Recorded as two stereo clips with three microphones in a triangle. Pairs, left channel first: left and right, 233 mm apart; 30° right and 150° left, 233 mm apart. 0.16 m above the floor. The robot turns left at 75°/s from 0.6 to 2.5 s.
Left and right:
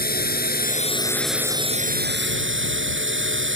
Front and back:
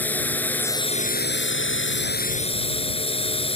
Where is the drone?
50° left; by 3.6 s 90° right.